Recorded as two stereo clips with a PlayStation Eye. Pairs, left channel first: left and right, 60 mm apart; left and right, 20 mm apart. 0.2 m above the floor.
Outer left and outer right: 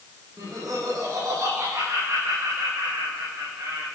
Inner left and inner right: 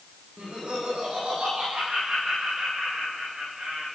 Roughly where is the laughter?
Right.